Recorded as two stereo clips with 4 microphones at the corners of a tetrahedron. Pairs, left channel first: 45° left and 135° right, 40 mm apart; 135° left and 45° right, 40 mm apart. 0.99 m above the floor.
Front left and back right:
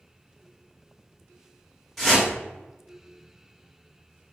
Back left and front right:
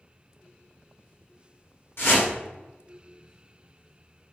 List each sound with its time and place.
2.0 s a whoosh: 130° left, 1.2 m